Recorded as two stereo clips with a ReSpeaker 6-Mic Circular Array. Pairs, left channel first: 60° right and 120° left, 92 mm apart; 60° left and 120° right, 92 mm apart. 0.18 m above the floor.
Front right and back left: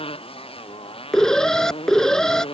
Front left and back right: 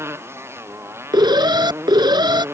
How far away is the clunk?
I don't hear a clunk.